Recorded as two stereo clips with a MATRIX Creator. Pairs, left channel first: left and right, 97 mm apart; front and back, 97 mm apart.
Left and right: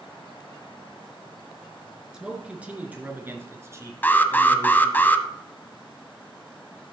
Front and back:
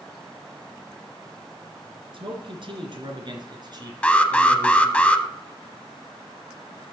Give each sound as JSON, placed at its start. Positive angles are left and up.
{"t": 2.1, "sound": "a man speaking", "azimuth_deg": -170, "distance_m": 2.5}
{"t": 4.0, "sound": "an alarm", "azimuth_deg": 60, "distance_m": 0.8}